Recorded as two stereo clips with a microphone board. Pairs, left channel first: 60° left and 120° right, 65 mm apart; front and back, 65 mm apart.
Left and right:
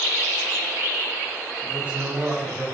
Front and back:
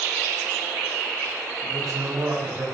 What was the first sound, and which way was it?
A man speaking, straight behind.